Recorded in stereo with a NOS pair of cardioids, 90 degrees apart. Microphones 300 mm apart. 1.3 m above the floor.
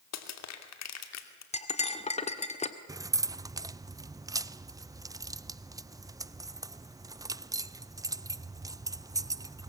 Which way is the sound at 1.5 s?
20° left.